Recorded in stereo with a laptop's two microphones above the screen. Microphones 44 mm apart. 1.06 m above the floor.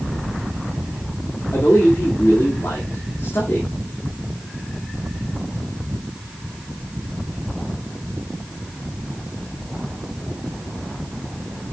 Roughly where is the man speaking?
Left.